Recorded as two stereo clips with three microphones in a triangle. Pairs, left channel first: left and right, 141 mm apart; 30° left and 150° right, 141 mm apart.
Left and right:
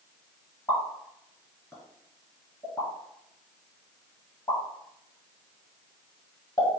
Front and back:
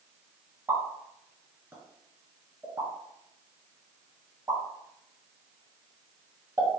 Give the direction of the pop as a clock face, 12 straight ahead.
7 o'clock.